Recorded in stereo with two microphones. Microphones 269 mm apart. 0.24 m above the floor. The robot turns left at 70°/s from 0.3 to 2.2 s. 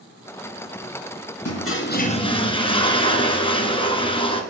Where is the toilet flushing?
75° left, 1.5 m; by 4.4 s 20° left, 1.5 m.